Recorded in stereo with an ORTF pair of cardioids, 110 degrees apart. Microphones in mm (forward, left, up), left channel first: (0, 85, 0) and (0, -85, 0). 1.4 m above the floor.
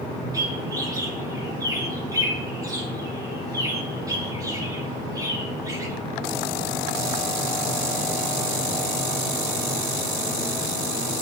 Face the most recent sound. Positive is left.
turn(degrees=-20)